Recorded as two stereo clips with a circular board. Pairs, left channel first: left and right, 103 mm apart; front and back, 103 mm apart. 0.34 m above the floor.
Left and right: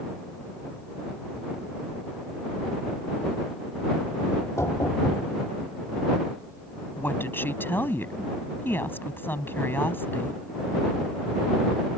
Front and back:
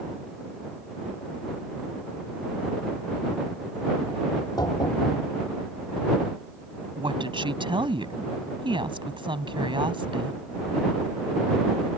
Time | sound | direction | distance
4.3 | knocking | 35° left | ?
7.0 | a woman speaking | 155° left | ?